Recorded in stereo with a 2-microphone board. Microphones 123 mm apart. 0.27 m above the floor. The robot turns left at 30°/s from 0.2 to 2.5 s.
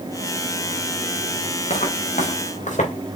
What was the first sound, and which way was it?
Footsteps, 70° left (ahead or behind).